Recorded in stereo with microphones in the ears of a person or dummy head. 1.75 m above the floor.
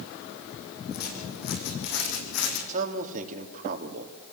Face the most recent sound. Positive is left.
turn(degrees=-45)  # may be behind; listen again after turning